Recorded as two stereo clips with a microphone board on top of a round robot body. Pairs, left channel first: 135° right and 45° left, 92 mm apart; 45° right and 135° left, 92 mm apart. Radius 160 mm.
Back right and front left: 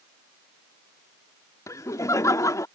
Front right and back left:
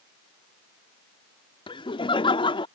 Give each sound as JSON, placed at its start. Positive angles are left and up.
{"t": 1.7, "sound": "laughter", "azimuth_deg": -75}